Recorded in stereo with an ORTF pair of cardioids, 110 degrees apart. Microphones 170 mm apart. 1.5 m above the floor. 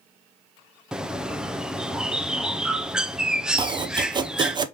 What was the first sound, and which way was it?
A bird, 5° right.